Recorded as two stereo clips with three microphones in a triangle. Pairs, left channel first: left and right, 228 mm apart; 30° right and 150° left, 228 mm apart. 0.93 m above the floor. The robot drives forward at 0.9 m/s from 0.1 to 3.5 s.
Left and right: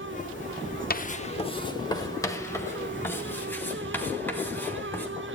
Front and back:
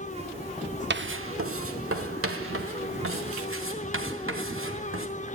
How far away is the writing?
About 0.6 m.